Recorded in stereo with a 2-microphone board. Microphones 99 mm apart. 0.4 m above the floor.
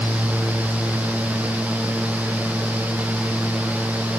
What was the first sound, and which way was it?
Only background noise.